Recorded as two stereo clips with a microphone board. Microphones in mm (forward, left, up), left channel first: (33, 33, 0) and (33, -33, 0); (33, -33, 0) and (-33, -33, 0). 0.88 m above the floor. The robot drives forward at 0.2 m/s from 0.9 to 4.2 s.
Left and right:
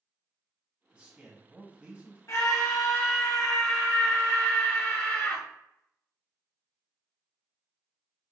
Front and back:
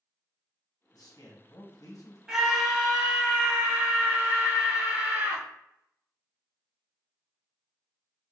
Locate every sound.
0.9 s a man speaking: 15° right, 1.1 m; by 2.2 s 20° right, 0.9 m
2.3 s a scream: 100° left, 1.1 m; by 5.4 s 125° left, 1.2 m